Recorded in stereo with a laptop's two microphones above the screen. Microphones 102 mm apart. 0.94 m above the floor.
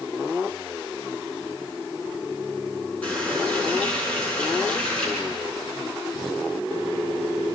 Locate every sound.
3.0 s a running tap: 10° left (ahead or behind), 7.5 m